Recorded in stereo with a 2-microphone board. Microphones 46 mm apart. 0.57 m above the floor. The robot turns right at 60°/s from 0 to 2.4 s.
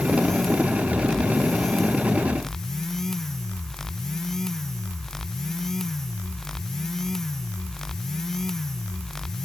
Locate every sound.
Only background noise.